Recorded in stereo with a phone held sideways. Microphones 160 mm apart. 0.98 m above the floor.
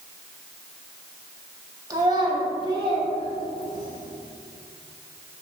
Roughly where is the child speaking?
Right.